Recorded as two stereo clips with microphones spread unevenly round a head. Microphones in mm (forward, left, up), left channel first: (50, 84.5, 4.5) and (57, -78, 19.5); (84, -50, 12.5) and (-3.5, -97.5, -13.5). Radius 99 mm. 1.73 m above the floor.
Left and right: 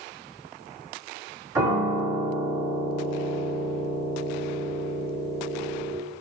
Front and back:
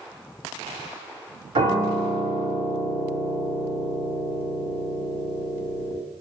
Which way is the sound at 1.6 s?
140° right.